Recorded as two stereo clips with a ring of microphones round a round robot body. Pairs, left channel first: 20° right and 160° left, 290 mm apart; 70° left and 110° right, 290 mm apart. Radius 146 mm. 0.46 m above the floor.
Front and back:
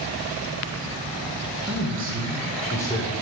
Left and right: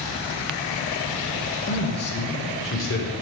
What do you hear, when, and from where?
1.7 s a man speaking: 120° left, 1.6 m; by 3.1 s 35° left, 1.5 m